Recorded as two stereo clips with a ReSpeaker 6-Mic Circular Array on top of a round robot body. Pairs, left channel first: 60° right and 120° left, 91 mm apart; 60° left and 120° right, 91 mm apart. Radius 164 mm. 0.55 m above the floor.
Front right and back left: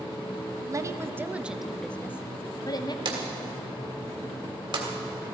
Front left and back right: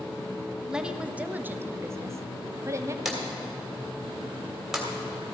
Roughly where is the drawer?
Behind left.